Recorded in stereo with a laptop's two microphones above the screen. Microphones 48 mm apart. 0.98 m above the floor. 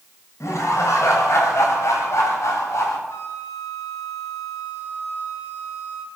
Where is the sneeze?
No sneeze in this recording.